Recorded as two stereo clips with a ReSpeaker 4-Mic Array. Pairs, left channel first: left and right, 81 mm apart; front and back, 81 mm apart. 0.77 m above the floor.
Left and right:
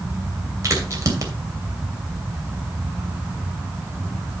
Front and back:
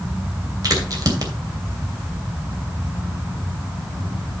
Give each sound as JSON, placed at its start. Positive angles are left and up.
{"t": 0.6, "sound": "a crack", "azimuth_deg": -140, "distance_m": 2.5}